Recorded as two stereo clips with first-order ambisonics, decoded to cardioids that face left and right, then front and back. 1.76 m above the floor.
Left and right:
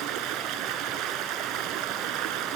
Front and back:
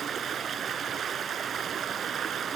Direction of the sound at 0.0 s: 120° right.